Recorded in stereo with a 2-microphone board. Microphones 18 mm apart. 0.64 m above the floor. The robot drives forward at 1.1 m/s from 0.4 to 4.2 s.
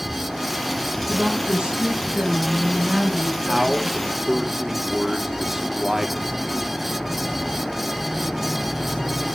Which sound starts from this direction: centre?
A man speaking, at 3.5 s.